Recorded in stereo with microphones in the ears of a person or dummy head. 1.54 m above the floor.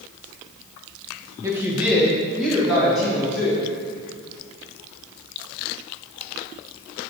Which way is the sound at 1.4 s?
15° right (ahead or behind).